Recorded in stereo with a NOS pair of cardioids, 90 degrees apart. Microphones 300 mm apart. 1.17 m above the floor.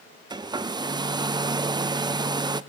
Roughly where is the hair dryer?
Ahead.